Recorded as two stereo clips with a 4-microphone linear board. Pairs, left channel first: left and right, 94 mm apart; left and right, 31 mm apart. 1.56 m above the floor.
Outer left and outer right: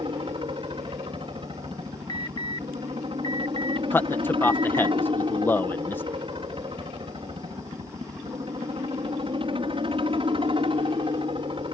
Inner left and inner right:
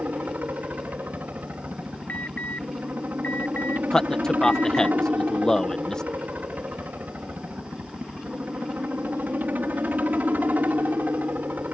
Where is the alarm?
55° left (ahead or behind).